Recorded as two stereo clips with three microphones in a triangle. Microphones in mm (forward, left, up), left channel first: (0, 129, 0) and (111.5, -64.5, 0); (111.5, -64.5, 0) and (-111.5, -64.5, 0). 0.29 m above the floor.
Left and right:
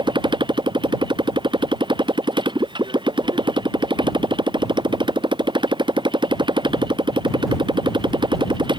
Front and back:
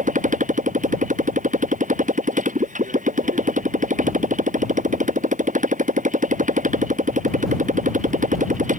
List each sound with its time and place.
0.0 s a motorcycle: 130° right